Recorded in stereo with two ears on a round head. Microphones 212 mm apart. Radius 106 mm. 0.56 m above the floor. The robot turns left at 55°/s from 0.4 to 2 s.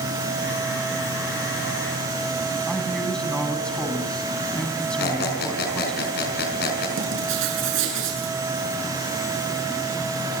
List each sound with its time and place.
2.7 s a man speaking: 5° left (ahead or behind), 4.5 m
5.0 s a squeak: 45° left (ahead or behind), 5 m
7.0 s writing: 55° right (ahead or behind), 7.5 m